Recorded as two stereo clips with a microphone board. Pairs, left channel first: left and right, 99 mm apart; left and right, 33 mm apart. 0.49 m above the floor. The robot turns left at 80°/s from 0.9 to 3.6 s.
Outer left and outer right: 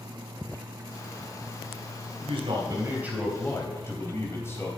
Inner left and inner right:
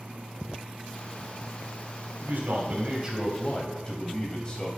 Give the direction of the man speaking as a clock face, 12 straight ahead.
3 o'clock.